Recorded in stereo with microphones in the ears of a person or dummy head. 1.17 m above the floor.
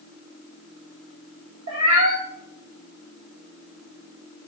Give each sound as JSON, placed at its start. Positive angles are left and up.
{"t": 1.7, "sound": "a cat meowing", "side_deg": -80, "distance_m": 1.7}